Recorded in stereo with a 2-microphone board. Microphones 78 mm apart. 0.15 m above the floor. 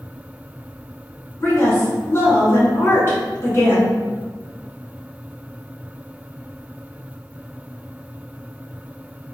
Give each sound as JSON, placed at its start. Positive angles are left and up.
{"t": 1.4, "sound": "a woman speaking", "side_deg": 35, "distance_m": 1.5}